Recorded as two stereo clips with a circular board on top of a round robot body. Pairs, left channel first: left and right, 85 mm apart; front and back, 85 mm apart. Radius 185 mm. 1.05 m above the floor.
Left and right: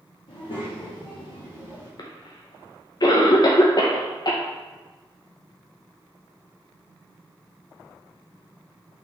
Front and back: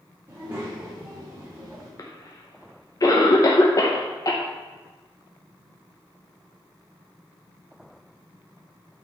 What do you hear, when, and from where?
0.3 s a child speaking: 115° left, 1.4 m; by 1.9 s 110° left, 3.5 m
2.0 s a cough: 50° left, 0.8 m